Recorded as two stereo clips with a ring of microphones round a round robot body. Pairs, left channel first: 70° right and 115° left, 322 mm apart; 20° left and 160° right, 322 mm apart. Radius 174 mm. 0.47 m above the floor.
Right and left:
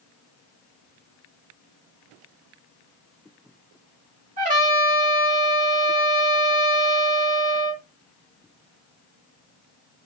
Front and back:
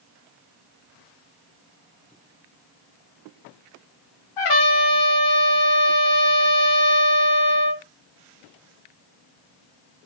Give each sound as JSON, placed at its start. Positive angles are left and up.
{"t": 4.4, "sound": "a trumpet", "azimuth_deg": 45, "distance_m": 0.8}